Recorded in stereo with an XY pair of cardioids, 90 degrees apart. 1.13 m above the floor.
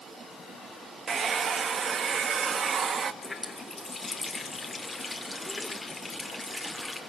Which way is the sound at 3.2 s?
25° left.